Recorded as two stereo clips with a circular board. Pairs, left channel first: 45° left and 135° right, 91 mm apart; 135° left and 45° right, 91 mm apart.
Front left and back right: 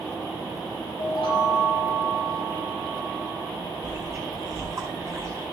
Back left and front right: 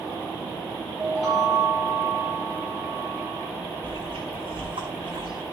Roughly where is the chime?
Ahead left.